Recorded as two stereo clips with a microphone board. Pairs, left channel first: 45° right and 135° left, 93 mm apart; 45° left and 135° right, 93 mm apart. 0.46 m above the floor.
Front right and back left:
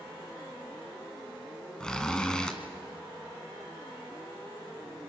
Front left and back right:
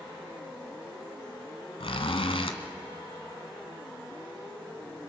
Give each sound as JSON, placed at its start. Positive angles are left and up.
{"t": 1.8, "sound": "a zipper", "azimuth_deg": 35, "distance_m": 1.4}